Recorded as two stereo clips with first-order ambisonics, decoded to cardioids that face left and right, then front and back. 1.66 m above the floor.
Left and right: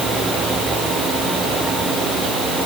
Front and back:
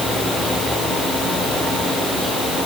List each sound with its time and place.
Only background noise.